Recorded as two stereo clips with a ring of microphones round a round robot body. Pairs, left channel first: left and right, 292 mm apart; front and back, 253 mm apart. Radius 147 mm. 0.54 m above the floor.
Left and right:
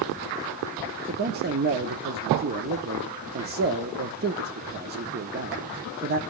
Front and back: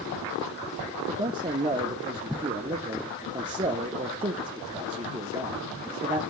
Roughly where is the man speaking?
Behind right.